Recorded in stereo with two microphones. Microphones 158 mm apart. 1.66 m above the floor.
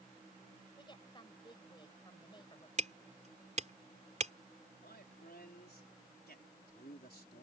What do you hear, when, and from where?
0.8 s a woman speaking: 30° left (ahead or behind)
2.8 s hammering: 50° right (ahead or behind)
4.8 s a man speaking: 90° left